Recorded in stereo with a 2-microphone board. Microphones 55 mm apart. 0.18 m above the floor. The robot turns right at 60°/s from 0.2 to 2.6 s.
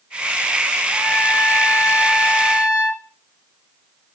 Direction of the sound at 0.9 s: 10° left.